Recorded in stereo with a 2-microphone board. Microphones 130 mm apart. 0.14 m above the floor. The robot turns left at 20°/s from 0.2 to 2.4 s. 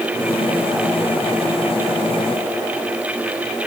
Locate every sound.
Only background noise.